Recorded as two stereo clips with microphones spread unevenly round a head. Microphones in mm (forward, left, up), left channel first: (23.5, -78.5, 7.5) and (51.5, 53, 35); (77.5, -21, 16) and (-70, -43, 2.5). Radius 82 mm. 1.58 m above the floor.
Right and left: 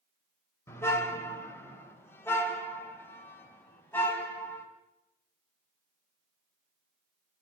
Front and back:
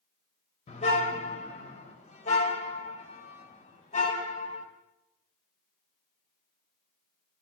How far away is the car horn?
About 2.5 m.